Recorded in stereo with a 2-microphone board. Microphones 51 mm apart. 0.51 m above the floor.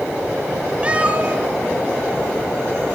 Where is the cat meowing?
25° right (ahead or behind), 1.3 m; by 3.0 s 45° right (ahead or behind), 2.5 m.